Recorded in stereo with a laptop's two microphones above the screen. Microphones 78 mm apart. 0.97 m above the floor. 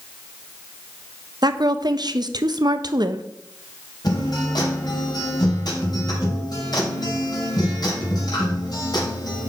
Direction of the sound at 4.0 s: 60° left (ahead or behind).